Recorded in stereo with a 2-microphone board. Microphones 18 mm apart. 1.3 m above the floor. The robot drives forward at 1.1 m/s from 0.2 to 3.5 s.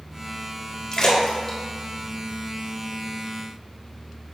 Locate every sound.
0.9 s a splash: 30° left (ahead or behind), 1.2 m; by 3.1 s 10° left (ahead or behind), 3.5 m